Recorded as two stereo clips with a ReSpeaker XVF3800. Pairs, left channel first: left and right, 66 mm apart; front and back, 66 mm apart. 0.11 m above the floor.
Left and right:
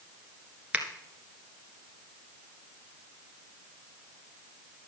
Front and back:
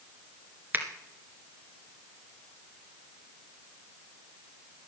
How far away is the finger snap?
About 1.7 m.